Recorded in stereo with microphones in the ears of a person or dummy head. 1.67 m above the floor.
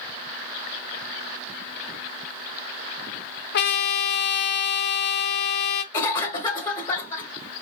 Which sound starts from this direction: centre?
A cough, at 5.9 s.